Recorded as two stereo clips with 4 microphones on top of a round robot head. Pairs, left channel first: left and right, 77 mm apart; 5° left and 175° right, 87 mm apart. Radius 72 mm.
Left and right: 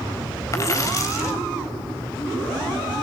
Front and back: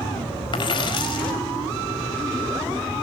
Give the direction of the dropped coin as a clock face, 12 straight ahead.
11 o'clock.